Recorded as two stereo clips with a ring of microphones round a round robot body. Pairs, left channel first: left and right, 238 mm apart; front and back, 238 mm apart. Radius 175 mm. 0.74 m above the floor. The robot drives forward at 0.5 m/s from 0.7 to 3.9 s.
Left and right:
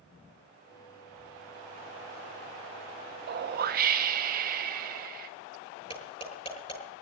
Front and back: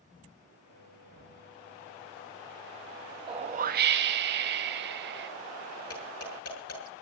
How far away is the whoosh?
About 0.7 m.